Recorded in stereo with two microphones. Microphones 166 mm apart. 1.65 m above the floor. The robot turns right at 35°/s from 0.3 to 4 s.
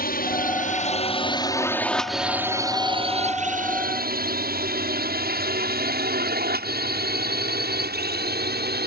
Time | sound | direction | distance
0.0 | a drone | 60° left (ahead or behind) | ?